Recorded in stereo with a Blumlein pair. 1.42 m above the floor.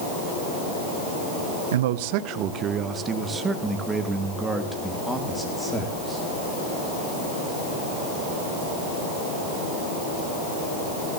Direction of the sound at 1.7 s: 60° right.